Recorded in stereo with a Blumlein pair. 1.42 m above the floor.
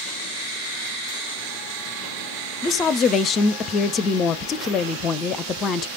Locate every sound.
2.6 s a woman speaking: 30° left, 0.6 m